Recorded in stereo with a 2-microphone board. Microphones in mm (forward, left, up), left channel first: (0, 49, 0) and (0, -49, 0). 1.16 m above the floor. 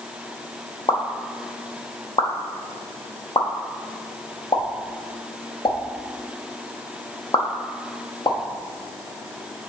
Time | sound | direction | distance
0.9 | a pop | 55° left (ahead or behind) | 0.7 m